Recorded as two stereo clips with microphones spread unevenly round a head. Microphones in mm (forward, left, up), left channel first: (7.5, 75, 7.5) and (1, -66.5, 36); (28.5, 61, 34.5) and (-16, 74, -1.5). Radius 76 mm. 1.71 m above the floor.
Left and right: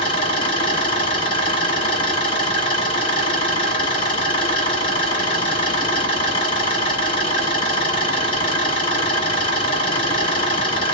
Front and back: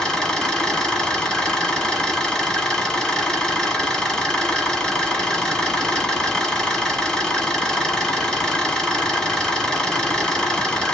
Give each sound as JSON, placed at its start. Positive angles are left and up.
{"t": 0.0, "sound": "an engine running", "azimuth_deg": 25, "distance_m": 2.0}